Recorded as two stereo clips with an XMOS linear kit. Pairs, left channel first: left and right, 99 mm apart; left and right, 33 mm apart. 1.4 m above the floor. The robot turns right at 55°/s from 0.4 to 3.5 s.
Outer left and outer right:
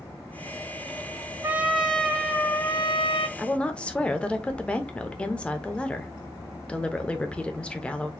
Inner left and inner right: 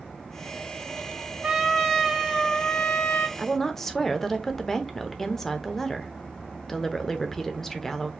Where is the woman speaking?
5° left (ahead or behind), 0.7 m; by 8.1 s 10° left (ahead or behind), 0.7 m.